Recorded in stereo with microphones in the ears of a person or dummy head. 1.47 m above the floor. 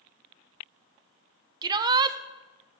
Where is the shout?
25° right (ahead or behind), 0.7 m.